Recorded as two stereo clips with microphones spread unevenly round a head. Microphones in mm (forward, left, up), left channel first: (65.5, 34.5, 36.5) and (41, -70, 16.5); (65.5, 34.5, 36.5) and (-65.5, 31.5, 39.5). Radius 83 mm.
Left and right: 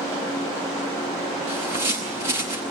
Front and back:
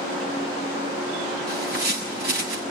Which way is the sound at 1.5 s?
165° right.